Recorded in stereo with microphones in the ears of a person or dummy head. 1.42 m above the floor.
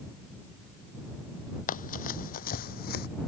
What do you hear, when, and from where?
1.7 s running footsteps: 40° left (ahead or behind); by 3.1 s 45° left (ahead or behind)